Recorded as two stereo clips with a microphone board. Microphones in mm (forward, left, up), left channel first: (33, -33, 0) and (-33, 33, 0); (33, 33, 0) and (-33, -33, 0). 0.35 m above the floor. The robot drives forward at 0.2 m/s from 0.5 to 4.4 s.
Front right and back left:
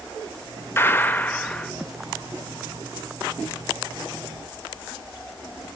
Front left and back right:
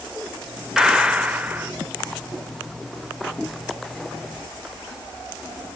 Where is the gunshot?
60° right, 0.6 m; by 1.7 s 110° right, 0.6 m.